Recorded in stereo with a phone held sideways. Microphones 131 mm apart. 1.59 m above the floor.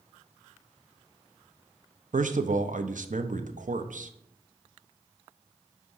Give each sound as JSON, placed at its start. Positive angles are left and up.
{"t": 2.1, "sound": "a man speaking", "side_deg": -80, "distance_m": 0.6}